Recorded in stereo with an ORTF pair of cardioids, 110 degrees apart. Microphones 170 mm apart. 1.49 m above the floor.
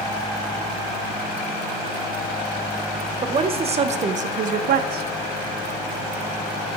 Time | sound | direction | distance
3.2 | a woman speaking | 30° right | 1.6 m